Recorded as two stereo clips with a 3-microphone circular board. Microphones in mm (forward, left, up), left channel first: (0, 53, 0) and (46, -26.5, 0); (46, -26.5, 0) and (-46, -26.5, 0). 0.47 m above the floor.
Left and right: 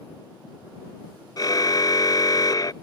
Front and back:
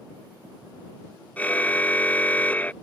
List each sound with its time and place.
1.4 s a car horn: 75° left